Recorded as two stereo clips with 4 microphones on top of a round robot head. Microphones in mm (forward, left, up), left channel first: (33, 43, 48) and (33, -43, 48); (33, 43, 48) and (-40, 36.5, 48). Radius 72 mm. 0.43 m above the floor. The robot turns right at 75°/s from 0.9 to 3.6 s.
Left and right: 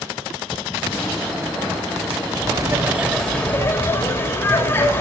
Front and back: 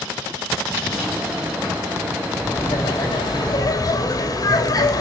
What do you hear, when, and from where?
2.4 s laughter: 60° right, 2.5 m; by 5.0 s 30° left, 2.5 m